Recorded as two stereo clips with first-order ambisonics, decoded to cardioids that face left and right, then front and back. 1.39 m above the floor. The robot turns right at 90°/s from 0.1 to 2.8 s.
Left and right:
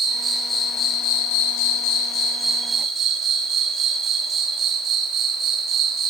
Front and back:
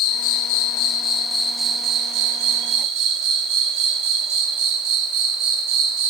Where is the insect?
35° right, 1.0 m; by 6.1 s 150° right, 1.0 m.